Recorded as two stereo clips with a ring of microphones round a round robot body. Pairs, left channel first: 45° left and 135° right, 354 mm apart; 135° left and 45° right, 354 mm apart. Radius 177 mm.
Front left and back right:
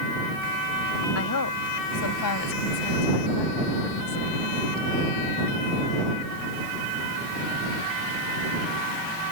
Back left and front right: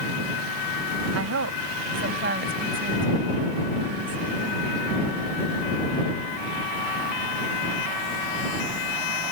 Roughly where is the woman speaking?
Ahead.